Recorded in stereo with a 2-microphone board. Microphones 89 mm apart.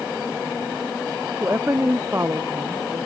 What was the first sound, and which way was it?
A woman speaking, 30° right (ahead or behind).